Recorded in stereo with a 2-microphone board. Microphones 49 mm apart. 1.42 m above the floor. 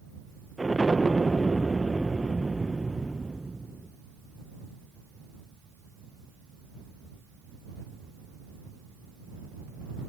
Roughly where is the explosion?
Centre.